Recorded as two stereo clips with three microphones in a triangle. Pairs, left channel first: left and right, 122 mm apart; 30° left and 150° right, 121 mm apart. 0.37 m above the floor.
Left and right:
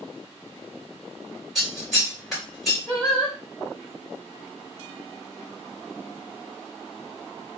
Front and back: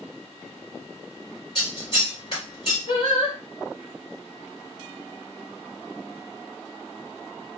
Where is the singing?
20° left, 1.6 m.